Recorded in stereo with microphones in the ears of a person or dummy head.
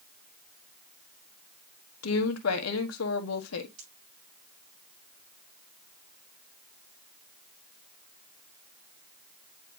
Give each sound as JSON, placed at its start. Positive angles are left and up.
{"t": 2.0, "sound": "a woman speaking", "side_deg": 90, "distance_m": 1.5}
{"t": 3.8, "sound": "a pop", "side_deg": -30, "distance_m": 6.5}